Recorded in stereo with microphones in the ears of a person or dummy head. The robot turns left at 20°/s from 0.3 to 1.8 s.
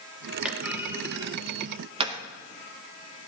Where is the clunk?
5° right (ahead or behind), 0.8 m; by 2.2 s 30° right (ahead or behind), 0.8 m.